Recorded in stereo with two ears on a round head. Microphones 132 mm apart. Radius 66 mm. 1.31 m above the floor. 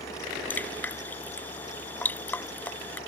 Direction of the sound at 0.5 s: 10° left (ahead or behind).